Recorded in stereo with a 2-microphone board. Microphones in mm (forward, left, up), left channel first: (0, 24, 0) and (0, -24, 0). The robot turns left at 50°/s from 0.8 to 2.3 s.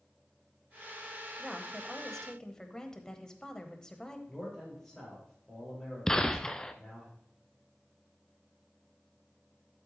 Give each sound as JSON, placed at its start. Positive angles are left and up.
{"t": 1.4, "sound": "a woman speaking", "azimuth_deg": -165, "distance_m": 1.1}
{"t": 4.3, "sound": "a man speaking", "side_deg": 10, "distance_m": 6.0}
{"t": 6.1, "sound": "a gunshot", "side_deg": 15, "distance_m": 0.6}